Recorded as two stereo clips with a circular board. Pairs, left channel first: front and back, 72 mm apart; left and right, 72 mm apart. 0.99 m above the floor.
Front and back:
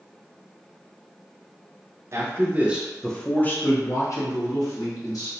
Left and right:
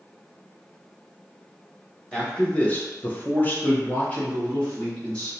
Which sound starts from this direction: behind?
A man speaking, at 2.1 s.